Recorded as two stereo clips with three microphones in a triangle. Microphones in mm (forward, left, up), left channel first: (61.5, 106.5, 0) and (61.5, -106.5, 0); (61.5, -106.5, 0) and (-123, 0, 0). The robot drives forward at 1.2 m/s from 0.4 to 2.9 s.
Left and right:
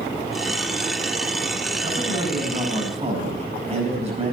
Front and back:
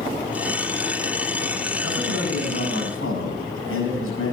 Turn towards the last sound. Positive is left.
turn(degrees=-30)